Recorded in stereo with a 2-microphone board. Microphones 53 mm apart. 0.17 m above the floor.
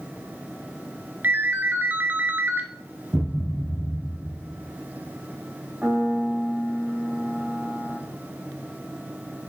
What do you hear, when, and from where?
1.2 s a ringtone: 40° right (ahead or behind), 1.3 m
3.1 s a thud: 50° right (ahead or behind), 2 m
5.8 s a piano: 30° right (ahead or behind), 3 m